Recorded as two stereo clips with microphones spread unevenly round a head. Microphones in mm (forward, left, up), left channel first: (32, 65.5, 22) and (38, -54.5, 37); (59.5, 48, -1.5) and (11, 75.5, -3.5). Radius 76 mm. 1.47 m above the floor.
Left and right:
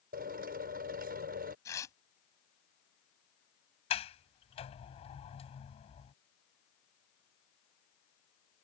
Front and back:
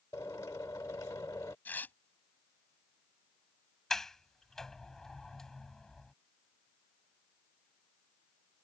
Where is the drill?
100° right.